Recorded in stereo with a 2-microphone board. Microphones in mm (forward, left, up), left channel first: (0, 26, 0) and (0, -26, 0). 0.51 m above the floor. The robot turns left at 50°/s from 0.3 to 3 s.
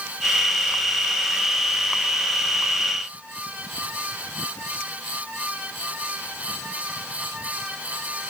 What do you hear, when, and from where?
Only background noise.